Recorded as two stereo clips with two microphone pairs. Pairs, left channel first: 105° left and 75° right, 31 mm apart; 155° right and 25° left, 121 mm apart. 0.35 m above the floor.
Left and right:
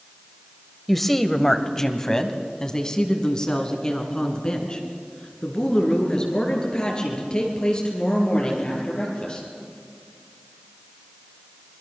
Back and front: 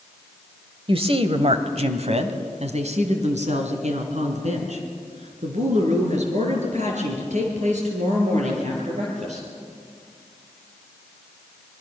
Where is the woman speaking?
20° left, 1.2 m; by 9.5 s 45° left, 7 m.